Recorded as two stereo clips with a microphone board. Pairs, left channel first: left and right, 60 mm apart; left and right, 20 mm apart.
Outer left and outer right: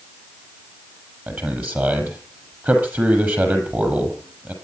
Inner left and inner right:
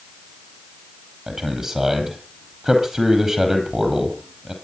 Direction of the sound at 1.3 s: 30° right (ahead or behind).